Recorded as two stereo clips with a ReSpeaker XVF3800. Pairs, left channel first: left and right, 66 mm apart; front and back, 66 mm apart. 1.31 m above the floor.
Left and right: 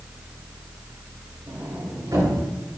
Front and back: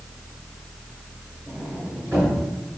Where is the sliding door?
125° right, 5 m.